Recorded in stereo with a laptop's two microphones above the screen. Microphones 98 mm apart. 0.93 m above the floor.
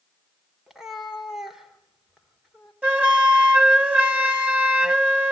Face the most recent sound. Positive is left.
turn(degrees=-15)  # may be behind; listen again after turning